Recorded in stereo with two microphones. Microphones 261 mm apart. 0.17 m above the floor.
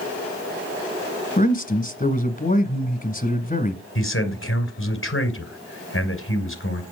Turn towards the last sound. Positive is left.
turn(degrees=50)  # may be behind; listen again after turning